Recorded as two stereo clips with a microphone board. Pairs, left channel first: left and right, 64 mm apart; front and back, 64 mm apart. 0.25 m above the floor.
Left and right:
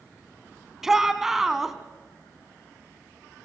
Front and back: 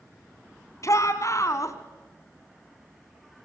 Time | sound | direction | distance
0.8 | a shout | 10° right | 2 m